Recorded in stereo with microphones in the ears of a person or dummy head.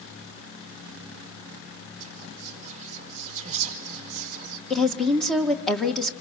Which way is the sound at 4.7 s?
Centre (ahead or behind).